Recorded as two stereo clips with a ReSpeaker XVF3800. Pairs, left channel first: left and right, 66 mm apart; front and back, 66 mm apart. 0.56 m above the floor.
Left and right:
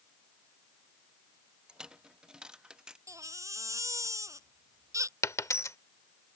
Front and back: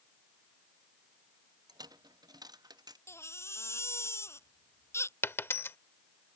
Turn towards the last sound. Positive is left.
turn(degrees=50)